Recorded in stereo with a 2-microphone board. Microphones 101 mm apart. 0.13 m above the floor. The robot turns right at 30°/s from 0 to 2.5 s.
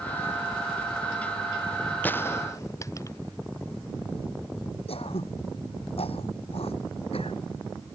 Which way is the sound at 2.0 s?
15° left (ahead or behind).